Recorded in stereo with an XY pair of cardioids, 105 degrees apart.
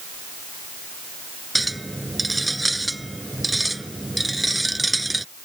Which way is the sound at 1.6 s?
10° right.